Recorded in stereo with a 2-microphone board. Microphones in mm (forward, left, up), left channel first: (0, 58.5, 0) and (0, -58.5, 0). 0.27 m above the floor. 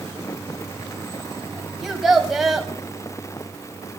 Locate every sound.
1.8 s a child speaking: centre (ahead or behind), 0.9 m